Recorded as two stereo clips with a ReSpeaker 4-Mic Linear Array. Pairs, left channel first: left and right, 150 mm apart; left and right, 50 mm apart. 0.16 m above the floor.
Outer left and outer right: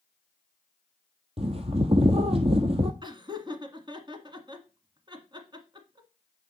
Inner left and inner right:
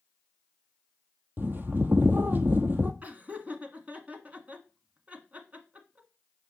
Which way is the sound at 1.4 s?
40° right (ahead or behind).